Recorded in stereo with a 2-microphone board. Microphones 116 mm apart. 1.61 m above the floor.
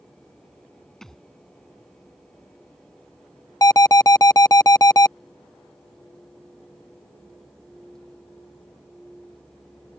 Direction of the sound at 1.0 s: 5° left (ahead or behind).